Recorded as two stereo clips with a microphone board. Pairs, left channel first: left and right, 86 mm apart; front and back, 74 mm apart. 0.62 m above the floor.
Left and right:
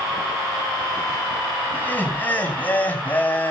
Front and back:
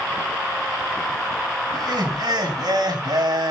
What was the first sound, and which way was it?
Laughter, 160° left.